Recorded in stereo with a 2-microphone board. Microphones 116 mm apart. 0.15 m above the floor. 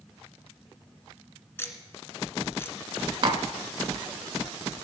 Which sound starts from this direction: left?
Ticking, at 1.6 s.